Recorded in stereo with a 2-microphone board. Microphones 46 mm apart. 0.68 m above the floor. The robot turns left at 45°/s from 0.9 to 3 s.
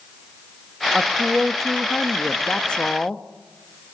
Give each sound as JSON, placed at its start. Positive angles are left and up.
{"t": 0.9, "sound": "a woman speaking", "side_deg": 0, "distance_m": 0.9}